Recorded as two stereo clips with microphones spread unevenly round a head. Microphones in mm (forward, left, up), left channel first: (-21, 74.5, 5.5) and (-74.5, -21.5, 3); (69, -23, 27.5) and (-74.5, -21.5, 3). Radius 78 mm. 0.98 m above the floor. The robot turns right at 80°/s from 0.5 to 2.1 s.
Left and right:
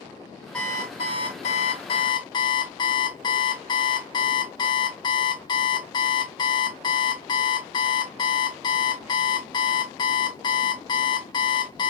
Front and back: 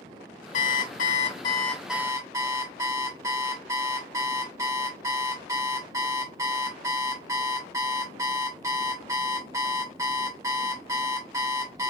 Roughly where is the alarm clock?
Ahead.